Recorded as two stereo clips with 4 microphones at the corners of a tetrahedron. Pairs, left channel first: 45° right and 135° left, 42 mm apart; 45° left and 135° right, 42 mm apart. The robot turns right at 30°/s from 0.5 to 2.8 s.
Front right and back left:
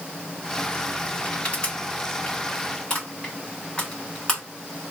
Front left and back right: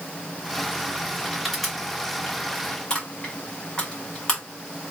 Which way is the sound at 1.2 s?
55° right.